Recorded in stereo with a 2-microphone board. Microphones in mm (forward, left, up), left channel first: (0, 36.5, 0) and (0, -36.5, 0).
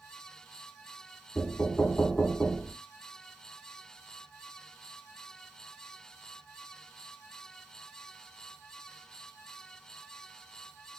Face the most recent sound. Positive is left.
turn(degrees=10)  # may be behind; listen again after turning